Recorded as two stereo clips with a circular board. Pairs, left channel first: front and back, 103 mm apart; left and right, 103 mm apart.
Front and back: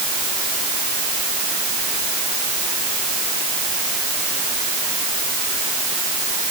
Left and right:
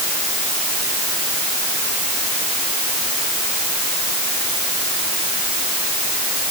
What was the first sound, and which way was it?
Only background noise.